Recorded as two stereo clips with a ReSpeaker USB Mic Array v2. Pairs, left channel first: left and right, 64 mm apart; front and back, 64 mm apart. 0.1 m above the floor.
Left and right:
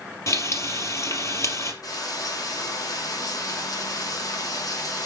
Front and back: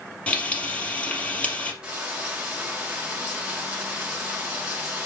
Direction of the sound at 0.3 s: 65° left.